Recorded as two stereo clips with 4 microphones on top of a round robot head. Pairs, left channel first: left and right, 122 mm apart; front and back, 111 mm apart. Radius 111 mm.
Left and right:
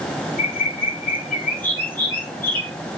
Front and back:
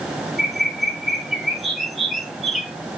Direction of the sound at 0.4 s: 90° left.